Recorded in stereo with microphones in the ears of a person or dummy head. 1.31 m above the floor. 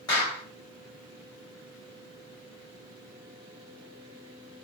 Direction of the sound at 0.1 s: 20° left (ahead or behind).